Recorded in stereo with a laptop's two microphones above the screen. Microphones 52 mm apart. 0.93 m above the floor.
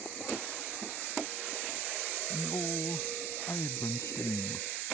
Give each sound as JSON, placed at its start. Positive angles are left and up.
{"t": 2.3, "sound": "a man speaking", "side_deg": 65}